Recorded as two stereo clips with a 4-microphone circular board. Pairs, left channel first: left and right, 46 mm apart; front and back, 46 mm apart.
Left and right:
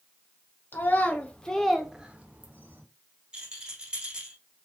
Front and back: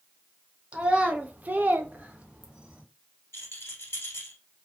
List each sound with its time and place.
0.7 s a child speaking: 120° left, 0.8 m; by 2.8 s 115° right, 0.8 m
3.3 s a rattle: 20° right, 1.2 m